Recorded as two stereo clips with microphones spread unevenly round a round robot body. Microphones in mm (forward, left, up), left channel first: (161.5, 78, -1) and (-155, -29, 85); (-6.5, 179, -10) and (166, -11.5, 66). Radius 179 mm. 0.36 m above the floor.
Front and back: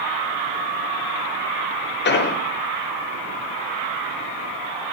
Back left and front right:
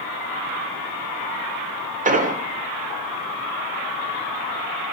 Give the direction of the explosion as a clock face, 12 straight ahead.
11 o'clock.